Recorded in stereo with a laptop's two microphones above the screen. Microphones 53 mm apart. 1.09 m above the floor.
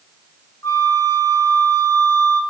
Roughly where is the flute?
Left.